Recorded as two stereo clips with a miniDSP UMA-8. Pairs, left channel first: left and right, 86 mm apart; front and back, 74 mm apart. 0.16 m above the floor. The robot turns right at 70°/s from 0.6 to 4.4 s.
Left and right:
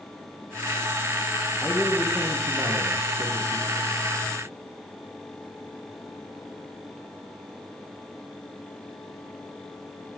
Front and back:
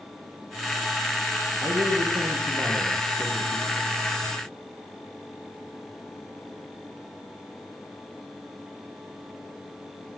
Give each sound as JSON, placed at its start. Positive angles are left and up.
{"t": 1.6, "sound": "a man speaking", "azimuth_deg": 160, "distance_m": 7.0}